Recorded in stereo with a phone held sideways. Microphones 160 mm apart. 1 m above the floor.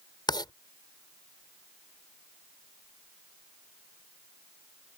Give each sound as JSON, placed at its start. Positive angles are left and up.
{"t": 0.3, "sound": "writing", "side_deg": 25}